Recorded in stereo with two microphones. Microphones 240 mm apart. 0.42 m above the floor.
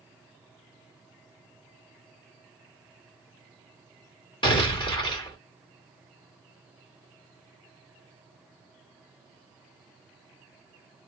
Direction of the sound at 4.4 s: 20° left (ahead or behind).